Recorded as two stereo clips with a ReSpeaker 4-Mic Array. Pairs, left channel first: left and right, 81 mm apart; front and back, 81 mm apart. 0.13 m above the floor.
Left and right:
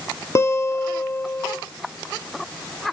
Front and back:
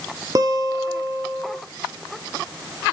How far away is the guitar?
About 0.5 m.